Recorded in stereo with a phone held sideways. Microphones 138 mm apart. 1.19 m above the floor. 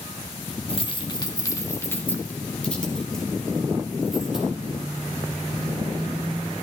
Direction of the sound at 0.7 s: 45° left (ahead or behind).